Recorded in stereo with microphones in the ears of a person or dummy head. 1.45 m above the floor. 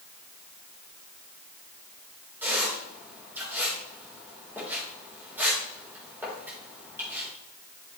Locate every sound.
2.4 s a squeak: 10° right (ahead or behind), 4 m